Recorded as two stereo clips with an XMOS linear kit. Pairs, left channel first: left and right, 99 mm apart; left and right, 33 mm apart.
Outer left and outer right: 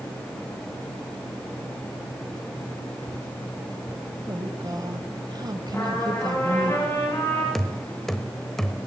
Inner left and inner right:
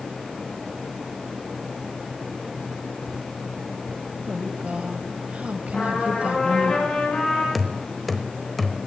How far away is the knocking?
About 0.9 m.